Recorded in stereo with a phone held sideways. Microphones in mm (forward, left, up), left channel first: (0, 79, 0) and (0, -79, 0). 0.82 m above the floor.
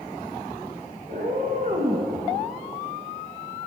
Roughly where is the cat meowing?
Right.